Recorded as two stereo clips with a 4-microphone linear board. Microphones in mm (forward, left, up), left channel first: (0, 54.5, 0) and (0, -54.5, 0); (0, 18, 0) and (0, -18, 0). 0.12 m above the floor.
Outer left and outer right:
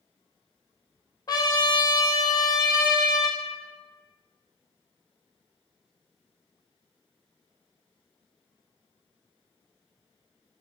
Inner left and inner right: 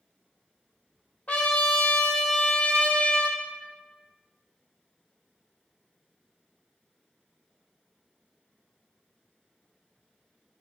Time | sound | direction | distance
1.3 | a trumpet | 40° left (ahead or behind) | 0.6 m